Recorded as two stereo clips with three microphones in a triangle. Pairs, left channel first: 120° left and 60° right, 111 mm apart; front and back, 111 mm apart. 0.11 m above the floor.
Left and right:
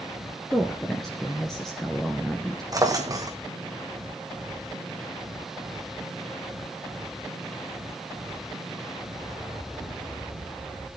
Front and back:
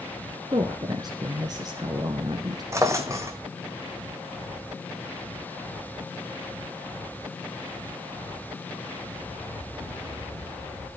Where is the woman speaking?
155° right, 1.4 m.